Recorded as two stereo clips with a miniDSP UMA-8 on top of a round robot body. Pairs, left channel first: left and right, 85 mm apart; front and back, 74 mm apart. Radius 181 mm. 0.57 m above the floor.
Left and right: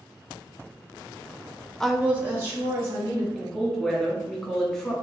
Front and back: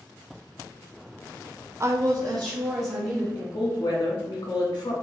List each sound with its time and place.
1.8 s a woman speaking: 170° left, 0.6 m; by 3.2 s 150° right, 2.5 m
3.4 s a woman speaking: 15° left, 1.6 m